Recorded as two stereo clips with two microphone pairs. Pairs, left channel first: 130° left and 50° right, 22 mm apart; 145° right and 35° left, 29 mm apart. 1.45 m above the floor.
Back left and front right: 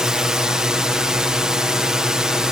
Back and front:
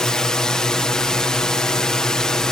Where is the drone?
90° right.